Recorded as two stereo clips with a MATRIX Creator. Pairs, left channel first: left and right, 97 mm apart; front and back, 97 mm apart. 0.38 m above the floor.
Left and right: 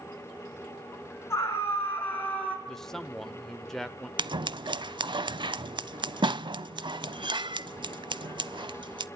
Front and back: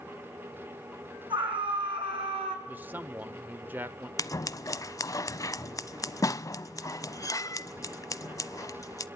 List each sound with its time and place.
1.3 s a scream: 150° left, 6 m; by 2.6 s 165° left, 5.5 m
2.7 s a man speaking: 165° left, 0.8 m
4.2 s scissors: 55° right, 0.5 m